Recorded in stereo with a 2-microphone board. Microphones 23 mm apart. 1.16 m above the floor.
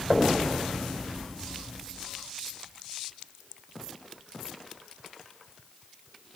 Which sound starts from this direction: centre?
Knocking, at 0.1 s.